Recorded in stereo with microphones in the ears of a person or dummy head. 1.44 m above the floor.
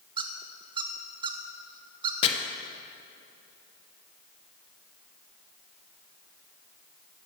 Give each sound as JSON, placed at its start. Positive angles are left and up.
{"t": 0.2, "sound": "a squeak", "side_deg": -30, "distance_m": 0.6}
{"t": 2.2, "sound": "chopping", "side_deg": 35, "distance_m": 1.0}